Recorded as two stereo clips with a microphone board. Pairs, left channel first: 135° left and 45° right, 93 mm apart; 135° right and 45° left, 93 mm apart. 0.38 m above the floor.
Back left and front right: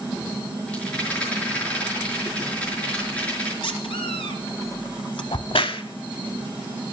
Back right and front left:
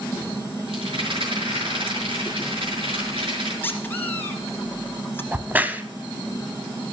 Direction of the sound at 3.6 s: 155° left.